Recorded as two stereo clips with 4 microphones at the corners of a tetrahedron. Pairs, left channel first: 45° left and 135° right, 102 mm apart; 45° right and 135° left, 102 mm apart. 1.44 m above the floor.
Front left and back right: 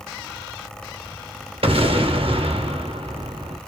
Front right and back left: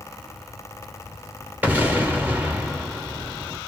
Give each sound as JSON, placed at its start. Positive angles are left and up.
{"t": 1.6, "sound": "an explosion", "azimuth_deg": -150, "distance_m": 1.1}